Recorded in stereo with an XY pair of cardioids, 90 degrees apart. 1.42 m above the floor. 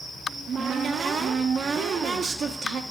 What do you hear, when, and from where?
0.3 s a cupboard door: 55° right, 0.9 m